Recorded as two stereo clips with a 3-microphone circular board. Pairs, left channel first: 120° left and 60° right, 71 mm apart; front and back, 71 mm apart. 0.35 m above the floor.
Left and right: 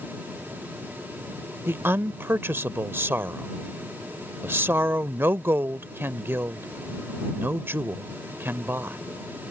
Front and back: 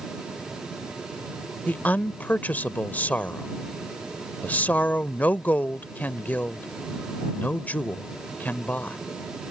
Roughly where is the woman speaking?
Ahead right.